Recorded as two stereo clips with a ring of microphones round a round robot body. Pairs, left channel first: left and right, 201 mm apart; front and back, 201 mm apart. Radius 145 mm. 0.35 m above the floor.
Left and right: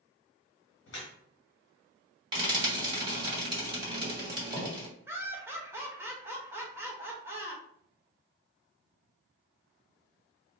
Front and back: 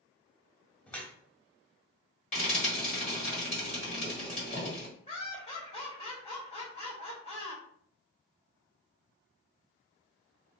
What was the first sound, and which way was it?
Dripping, 85° left.